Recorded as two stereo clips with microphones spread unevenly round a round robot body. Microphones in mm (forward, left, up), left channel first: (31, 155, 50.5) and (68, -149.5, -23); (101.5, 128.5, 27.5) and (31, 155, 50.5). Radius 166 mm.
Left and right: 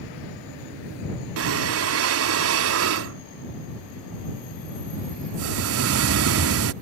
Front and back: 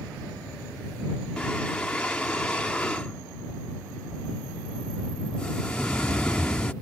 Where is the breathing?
85° right.